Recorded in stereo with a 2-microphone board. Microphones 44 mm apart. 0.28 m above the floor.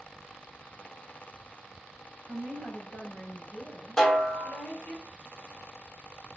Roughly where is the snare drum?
Centre.